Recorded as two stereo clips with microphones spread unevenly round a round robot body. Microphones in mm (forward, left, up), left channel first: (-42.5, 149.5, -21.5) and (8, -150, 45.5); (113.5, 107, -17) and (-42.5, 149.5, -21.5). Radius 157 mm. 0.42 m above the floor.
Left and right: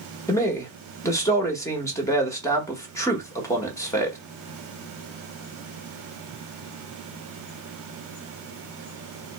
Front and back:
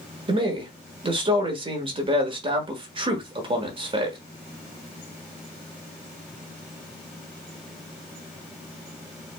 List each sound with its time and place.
0.3 s a man speaking: 150° left, 1.0 m